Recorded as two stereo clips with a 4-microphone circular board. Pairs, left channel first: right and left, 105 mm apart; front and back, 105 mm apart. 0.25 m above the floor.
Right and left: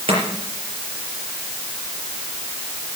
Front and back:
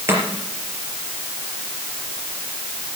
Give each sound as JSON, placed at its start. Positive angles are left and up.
{"t": 0.1, "sound": "chopping", "azimuth_deg": 115, "distance_m": 4.5}